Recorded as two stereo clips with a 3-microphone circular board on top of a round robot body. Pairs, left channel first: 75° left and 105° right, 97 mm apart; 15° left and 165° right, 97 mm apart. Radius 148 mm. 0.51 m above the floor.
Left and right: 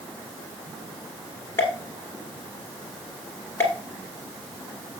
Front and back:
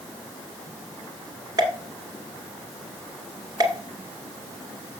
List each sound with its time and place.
1.6 s a pop: 145° left, 1.5 m